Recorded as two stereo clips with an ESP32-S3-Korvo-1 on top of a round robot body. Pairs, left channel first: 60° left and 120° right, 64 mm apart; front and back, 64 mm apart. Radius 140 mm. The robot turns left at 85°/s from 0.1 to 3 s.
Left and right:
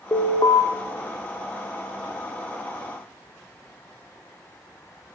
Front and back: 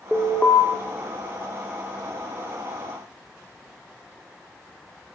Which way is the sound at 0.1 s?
95° left.